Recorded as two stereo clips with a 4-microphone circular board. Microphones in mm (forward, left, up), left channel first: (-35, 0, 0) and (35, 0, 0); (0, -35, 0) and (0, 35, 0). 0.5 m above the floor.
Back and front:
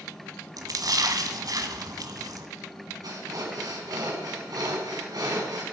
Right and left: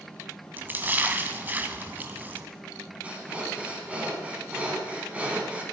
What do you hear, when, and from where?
0.6 s a splash: 25° left, 1.5 m
3.0 s breathing: 20° left, 4 m